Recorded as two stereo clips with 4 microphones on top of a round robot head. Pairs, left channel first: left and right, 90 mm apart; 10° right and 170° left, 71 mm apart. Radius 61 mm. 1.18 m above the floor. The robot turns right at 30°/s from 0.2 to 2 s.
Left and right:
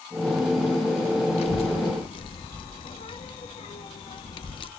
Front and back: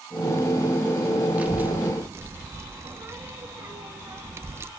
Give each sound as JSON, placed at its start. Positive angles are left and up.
{"t": 1.4, "sound": "a child speaking", "azimuth_deg": 100, "distance_m": 0.9}